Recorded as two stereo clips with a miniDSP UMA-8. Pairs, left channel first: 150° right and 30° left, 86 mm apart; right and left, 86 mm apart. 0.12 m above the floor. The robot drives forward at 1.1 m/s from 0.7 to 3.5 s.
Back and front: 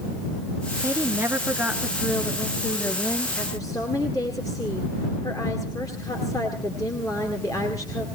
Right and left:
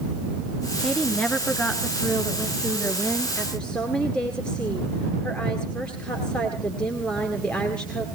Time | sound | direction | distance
0.8 | a woman speaking | 10° right | 2 m